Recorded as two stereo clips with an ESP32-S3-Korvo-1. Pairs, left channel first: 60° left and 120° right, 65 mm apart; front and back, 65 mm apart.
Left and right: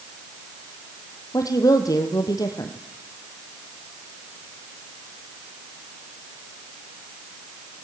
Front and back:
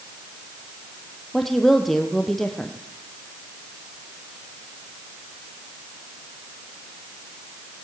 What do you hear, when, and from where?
1.3 s a woman speaking: 85° left, 3.5 m